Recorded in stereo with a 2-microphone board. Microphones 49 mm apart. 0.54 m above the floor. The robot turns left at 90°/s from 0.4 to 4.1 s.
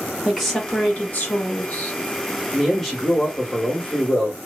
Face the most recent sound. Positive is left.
turn(degrees=20)  # may be behind; listen again after turning